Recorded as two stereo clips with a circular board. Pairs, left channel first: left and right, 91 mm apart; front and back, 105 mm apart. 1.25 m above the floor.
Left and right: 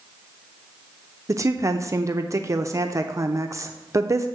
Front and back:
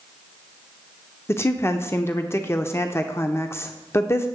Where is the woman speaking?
55° right, 0.6 m.